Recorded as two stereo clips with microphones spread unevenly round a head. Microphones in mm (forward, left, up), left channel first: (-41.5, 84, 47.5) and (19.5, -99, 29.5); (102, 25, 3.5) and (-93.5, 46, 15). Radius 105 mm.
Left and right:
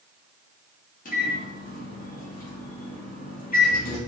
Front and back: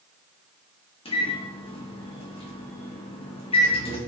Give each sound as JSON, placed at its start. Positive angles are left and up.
{"t": 1.1, "sound": "a microwave", "azimuth_deg": 60, "distance_m": 1.1}